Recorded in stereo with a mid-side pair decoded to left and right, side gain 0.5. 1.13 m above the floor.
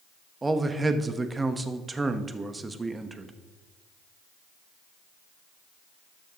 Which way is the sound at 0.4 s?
25° right.